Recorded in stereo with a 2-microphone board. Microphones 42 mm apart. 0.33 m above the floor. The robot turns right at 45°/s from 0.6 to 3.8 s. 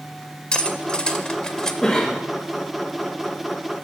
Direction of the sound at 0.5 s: 25° left (ahead or behind).